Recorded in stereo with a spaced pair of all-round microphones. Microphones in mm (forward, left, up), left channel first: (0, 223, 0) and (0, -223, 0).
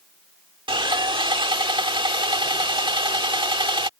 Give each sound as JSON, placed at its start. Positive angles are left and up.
{"t": 0.7, "sound": "sawing", "side_deg": -10}